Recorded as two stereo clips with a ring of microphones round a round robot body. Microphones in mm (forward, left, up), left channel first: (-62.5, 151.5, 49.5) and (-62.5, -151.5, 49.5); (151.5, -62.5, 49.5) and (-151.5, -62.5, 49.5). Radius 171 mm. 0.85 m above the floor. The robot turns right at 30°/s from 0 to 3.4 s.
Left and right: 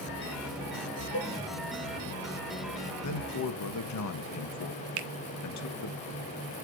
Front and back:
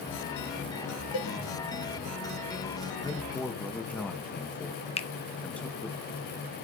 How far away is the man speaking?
About 1.2 m.